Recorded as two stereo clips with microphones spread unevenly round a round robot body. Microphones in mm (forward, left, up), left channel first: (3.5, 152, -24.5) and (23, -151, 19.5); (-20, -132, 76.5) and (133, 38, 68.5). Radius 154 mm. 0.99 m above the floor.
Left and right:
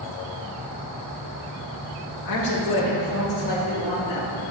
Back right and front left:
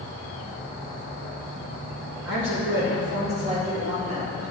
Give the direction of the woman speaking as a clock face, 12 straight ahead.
9 o'clock.